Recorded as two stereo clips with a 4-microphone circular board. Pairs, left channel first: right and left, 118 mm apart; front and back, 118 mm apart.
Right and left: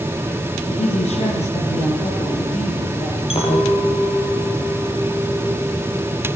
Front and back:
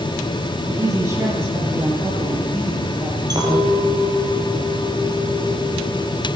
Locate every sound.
0.7 s a woman speaking: 120° right, 9.5 m; by 4.0 s 90° right, 10 m
3.3 s a clink: 125° right, 10 m